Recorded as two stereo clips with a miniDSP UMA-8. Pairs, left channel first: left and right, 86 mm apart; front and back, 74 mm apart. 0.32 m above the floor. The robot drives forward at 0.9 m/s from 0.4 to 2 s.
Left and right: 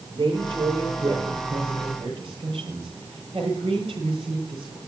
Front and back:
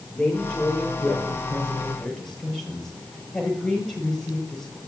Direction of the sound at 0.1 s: 75° right.